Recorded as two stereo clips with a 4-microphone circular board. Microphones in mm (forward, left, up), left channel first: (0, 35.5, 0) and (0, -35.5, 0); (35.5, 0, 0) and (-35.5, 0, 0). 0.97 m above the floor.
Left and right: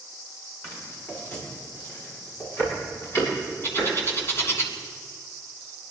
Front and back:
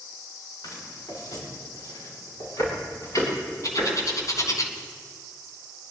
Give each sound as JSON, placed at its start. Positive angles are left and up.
{"t": 0.6, "sound": "footsteps", "azimuth_deg": 35, "distance_m": 7.0}
{"t": 3.6, "sound": "a bird", "azimuth_deg": 40, "distance_m": 2.5}